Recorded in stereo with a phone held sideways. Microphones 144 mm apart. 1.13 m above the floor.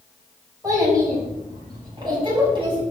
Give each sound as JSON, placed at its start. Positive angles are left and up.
{"t": 0.6, "sound": "a child speaking", "side_deg": -25, "distance_m": 5.5}